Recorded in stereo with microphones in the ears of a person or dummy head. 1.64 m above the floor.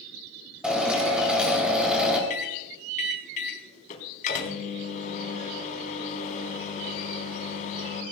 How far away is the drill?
About 5.5 m.